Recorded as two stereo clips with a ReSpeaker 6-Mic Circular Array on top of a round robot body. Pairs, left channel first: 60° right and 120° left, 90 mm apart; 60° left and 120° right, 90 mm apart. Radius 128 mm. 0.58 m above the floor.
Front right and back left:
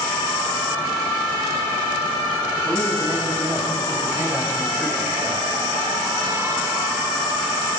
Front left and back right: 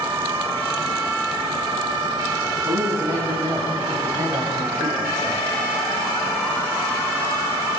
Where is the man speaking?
175° right, 7.5 m.